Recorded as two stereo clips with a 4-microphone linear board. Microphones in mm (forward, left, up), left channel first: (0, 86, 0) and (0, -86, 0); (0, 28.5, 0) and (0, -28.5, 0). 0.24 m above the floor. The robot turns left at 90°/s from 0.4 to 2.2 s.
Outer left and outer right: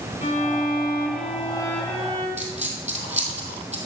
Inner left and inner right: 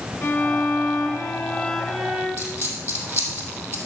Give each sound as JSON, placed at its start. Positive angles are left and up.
{"t": 0.2, "sound": "a violin", "azimuth_deg": 130, "distance_m": 2.5}
{"t": 2.4, "sound": "a dropped coin", "side_deg": -40, "distance_m": 2.5}